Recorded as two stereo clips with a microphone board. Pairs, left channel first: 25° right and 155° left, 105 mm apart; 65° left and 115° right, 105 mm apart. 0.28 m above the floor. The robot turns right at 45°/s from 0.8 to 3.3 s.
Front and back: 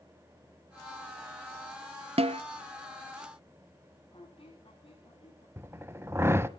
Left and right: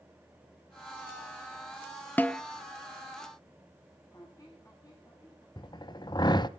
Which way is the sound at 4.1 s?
10° left.